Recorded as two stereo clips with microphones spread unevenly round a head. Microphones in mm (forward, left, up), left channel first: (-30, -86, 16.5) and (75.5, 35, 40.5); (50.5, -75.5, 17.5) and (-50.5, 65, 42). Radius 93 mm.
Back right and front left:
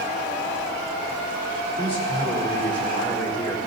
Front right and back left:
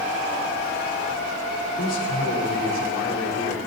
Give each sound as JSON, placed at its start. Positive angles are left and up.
{"t": 1.8, "sound": "a man speaking", "azimuth_deg": -75, "distance_m": 4.5}